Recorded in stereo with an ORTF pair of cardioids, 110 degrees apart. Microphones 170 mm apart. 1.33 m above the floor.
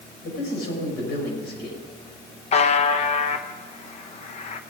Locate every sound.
0.2 s a man speaking: 70° left, 5.5 m
2.5 s a buzzer: 40° left, 0.9 m